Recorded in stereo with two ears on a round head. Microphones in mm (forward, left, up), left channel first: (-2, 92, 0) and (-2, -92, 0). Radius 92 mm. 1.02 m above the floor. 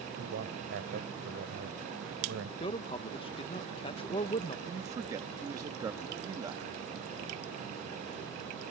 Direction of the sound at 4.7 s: 15° right (ahead or behind).